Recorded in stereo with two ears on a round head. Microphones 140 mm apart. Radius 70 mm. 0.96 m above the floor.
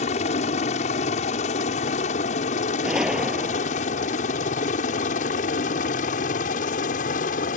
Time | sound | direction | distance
0.0 | a helicopter | 45° left (ahead or behind) | ?
2.8 | a gunshot | 5° right (ahead or behind) | ?